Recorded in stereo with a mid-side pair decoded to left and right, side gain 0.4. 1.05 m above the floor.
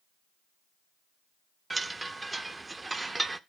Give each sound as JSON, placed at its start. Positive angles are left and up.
{"t": 1.7, "sound": "a chime", "azimuth_deg": -25, "distance_m": 0.9}